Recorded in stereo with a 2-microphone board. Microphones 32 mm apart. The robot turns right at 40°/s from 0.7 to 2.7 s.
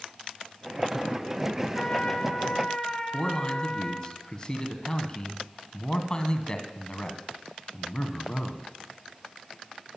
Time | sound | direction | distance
1.8 | a trumpet | 25° left (ahead or behind) | 1.7 m
3.1 | a man speaking | 25° left (ahead or behind) | 1.8 m